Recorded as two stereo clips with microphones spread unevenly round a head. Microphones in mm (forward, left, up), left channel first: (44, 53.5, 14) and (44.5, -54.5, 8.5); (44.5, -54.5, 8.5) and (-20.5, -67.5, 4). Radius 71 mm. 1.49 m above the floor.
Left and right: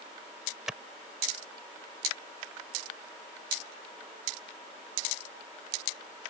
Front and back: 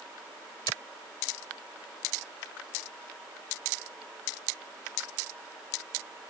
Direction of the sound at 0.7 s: 5° right.